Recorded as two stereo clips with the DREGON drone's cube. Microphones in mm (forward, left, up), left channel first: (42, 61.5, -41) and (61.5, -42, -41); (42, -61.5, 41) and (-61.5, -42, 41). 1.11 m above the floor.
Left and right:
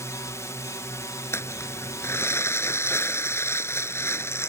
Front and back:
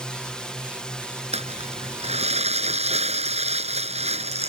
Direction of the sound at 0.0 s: 65° left.